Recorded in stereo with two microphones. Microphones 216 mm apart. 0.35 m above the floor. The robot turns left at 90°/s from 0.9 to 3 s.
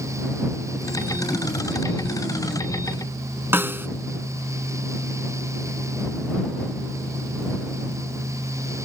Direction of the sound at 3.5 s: 10° right (ahead or behind).